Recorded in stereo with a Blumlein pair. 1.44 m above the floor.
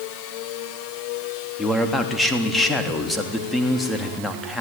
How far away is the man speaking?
About 3.5 m.